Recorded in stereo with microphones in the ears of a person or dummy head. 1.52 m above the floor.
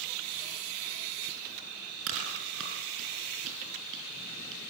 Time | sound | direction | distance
2.1 | chewing | 70° right (ahead or behind) | 5.5 m